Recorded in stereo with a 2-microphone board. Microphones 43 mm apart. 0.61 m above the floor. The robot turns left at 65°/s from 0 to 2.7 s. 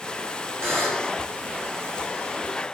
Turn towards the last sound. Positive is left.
turn(degrees=135)